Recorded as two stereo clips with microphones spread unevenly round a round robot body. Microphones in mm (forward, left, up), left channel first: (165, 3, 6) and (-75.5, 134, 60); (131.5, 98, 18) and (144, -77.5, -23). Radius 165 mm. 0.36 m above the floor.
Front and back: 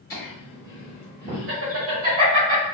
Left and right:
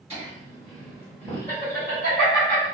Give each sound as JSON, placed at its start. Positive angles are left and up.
{"t": 0.1, "sound": "laughter", "azimuth_deg": -65, "distance_m": 1.0}